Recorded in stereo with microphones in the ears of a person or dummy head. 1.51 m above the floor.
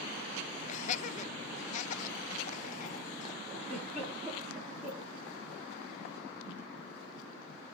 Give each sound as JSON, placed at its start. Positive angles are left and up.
{"t": 0.7, "sound": "laughter", "side_deg": 45, "distance_m": 0.5}
{"t": 3.6, "sound": "a giggle", "side_deg": -10, "distance_m": 7.5}